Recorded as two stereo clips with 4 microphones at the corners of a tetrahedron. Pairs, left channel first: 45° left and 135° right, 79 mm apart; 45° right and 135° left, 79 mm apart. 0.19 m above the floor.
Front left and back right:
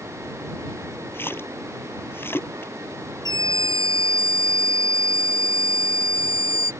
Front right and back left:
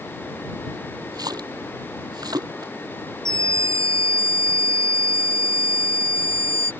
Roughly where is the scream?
Behind.